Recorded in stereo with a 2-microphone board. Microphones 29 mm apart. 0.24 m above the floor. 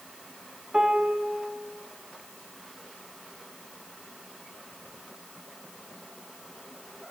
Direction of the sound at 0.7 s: 30° right (ahead or behind).